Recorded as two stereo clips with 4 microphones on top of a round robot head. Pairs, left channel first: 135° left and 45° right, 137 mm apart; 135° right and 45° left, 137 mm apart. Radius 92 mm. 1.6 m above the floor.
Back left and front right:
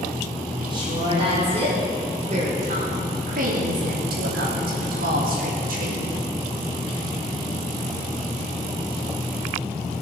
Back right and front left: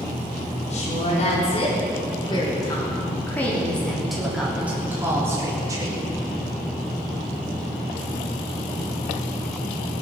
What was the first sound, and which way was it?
A woman speaking, 95° right.